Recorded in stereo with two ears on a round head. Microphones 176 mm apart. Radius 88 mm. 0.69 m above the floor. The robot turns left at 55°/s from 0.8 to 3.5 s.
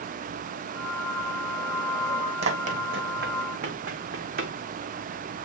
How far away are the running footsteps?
About 1.4 m.